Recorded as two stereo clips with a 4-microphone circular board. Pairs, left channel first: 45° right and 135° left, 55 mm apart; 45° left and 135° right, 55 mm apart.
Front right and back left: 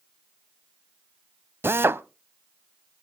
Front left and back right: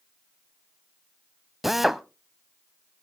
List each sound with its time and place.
1.6 s a drill: 140° left, 0.6 m